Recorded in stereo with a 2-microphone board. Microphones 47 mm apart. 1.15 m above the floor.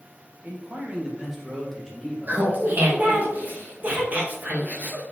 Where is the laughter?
35° right (ahead or behind), 1.5 m.